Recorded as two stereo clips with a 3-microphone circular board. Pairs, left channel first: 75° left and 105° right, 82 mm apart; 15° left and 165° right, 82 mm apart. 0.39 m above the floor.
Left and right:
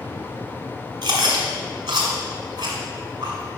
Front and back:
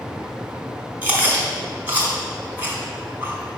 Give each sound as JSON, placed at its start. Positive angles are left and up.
{"t": 1.0, "sound": "chewing", "azimuth_deg": -100, "distance_m": 1.8}